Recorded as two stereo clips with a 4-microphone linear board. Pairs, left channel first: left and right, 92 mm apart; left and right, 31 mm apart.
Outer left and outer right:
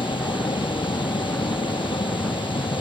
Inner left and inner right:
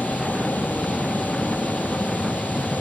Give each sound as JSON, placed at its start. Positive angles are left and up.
{"t": 0.0, "sound": "a vehicle", "side_deg": 65}